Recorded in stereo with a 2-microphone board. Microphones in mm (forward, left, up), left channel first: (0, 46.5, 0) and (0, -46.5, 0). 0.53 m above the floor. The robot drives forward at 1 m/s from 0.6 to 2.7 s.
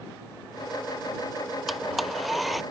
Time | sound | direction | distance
1.7 | a blender | centre (ahead or behind) | ?